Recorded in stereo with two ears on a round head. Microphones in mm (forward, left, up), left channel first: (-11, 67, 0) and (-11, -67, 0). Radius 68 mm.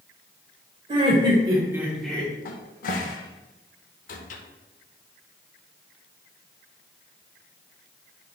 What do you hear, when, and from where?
0.9 s laughter: 35° right (ahead or behind), 1.9 m; by 2.4 s 20° left (ahead or behind), 1.1 m
2.5 s a cupboard door: 55° left (ahead or behind), 0.5 m